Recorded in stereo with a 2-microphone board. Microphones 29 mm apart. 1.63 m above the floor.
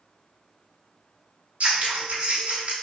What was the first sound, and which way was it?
Scissors, 40° right (ahead or behind).